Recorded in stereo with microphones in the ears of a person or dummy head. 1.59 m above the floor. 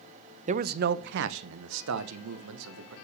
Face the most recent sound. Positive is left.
turn(degrees=-75)  # may be behind; listen again after turning